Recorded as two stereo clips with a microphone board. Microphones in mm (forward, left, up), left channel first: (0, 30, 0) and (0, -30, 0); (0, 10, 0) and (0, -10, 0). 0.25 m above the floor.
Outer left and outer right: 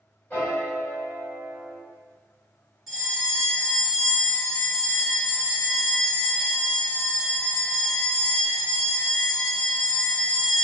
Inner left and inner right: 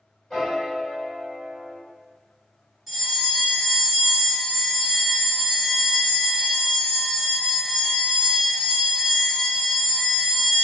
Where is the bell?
5° right (ahead or behind), 1.1 m.